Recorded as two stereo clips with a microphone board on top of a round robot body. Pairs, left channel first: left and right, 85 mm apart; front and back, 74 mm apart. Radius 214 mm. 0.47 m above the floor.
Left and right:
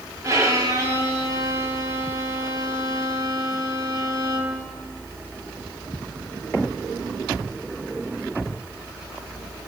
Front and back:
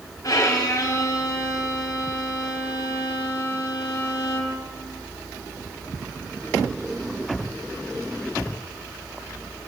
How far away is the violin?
About 4 m.